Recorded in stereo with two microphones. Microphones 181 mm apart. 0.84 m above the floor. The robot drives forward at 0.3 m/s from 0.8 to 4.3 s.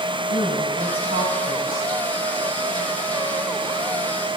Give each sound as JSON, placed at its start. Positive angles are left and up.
{"t": 0.3, "sound": "a woman speaking", "side_deg": -55, "distance_m": 5.0}